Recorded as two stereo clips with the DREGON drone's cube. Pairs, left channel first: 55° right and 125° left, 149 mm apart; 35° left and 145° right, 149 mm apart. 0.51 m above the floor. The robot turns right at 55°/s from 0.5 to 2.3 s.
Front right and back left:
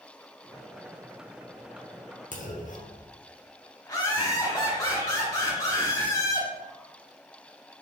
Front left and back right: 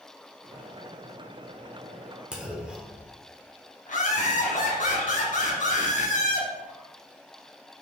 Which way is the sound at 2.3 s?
65° right.